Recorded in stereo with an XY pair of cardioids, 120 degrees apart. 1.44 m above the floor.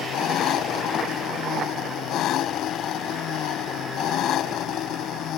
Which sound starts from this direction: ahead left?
An engine running, at 0.0 s.